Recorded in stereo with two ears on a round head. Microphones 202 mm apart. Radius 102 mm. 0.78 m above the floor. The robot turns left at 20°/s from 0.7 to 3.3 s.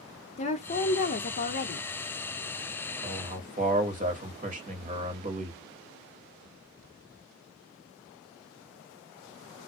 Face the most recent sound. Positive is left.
turn(degrees=-35)  # may be behind; listen again after turning